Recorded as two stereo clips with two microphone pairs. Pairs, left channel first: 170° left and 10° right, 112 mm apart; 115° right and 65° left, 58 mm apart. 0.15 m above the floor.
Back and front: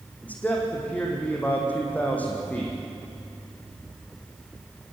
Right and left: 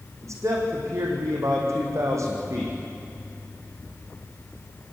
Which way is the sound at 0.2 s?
95° left.